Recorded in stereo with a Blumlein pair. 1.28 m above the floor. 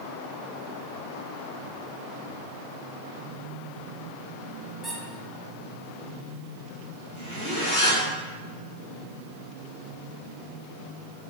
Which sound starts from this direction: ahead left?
A zipper, at 7.2 s.